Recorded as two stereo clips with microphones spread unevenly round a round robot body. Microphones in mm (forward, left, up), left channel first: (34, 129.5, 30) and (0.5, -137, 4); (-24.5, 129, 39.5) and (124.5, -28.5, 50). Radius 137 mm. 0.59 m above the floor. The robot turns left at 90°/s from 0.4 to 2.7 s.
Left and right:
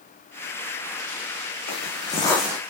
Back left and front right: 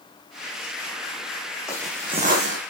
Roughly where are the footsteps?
Ahead left.